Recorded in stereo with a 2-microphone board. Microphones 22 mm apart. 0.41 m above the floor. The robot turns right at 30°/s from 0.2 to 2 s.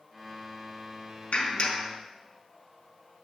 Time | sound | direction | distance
1.3 | a clap | 70° left (ahead or behind) | 4 m